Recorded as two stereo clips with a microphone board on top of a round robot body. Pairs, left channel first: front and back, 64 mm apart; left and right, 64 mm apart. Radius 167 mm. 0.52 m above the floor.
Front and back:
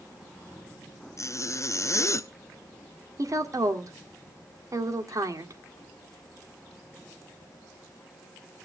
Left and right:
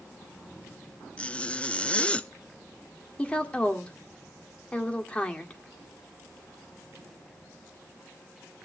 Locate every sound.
1.2 s a zipper: 20° left, 0.9 m
3.2 s a woman speaking: 160° left, 2 m